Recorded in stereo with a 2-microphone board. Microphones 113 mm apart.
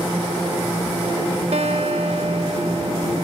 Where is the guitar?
65° right (ahead or behind), 0.9 m.